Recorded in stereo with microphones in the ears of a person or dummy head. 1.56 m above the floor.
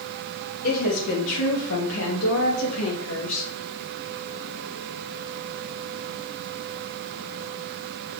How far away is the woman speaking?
About 3 m.